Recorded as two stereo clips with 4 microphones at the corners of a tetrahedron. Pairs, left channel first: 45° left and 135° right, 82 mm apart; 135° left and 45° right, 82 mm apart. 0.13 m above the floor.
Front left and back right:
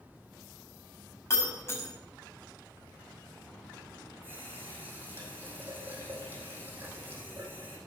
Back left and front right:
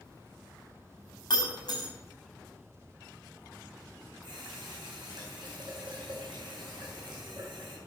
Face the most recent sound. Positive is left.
turn(degrees=-70)